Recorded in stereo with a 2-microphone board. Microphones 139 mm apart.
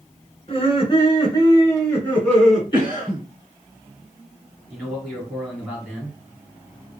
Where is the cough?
25° left (ahead or behind), 1.9 m.